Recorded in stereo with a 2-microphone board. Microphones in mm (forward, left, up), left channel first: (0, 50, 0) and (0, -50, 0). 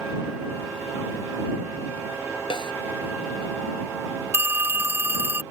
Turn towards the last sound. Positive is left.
turn(degrees=-25)  # may be behind; listen again after turning